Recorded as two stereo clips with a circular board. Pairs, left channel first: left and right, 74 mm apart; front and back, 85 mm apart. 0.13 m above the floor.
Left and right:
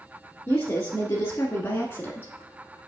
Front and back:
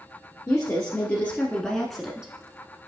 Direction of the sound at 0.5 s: 40° left.